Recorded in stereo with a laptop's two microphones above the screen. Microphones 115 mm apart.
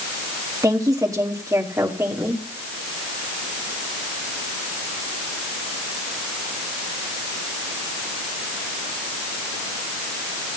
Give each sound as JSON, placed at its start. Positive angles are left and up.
{"t": 0.6, "sound": "a woman speaking", "side_deg": -35, "distance_m": 1.5}